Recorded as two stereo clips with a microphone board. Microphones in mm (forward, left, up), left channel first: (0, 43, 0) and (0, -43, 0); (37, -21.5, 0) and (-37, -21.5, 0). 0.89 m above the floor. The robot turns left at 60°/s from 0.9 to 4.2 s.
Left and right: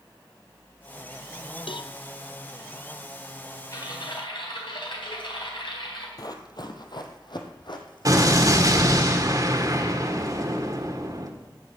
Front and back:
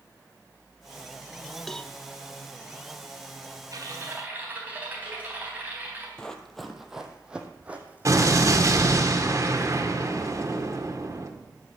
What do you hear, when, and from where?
1.7 s a cowbell: 85° left, 0.6 m; by 1.9 s 70° left, 0.6 m
3.7 s typing on a keyboard: 140° left, 4 m; by 6.1 s 115° left, 4 m
6.2 s running footsteps: 75° left, 1.3 m; by 9.1 s 120° left, 3 m
8.1 s an explosion: 135° right, 1.7 m